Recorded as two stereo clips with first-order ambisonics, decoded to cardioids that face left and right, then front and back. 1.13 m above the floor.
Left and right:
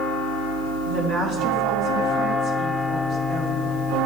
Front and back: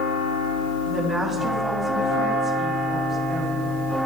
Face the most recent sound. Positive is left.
turn(degrees=-100)